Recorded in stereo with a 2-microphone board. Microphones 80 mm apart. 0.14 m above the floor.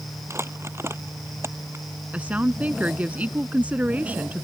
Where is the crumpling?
35° right (ahead or behind).